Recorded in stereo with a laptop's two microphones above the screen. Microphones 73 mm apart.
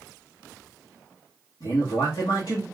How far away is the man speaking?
About 1.1 m.